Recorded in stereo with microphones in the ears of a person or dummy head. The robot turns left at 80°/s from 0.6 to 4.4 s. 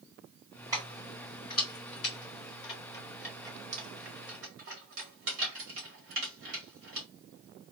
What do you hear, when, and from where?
0.7 s keys jangling: 15° right (ahead or behind), 1.7 m; by 7.1 s 75° right (ahead or behind), 1.7 m